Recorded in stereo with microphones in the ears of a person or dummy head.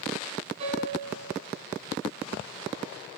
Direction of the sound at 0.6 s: 40° right (ahead or behind).